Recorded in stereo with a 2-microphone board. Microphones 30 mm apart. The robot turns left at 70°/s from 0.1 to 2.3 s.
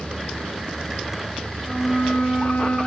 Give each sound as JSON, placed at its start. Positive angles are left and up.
{"t": 1.6, "sound": "a flute", "azimuth_deg": 165, "distance_m": 8.5}